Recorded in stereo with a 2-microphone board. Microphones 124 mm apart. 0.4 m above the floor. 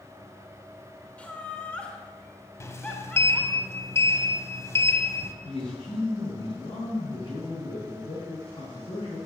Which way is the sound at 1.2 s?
10° left (ahead or behind).